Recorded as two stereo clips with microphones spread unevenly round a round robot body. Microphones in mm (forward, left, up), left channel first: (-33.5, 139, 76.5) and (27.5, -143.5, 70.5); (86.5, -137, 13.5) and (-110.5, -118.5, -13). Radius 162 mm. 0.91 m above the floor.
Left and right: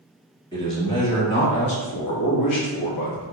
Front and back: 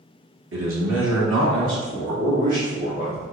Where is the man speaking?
Straight behind, 1.8 m; by 3.2 s 90° left, 1.7 m.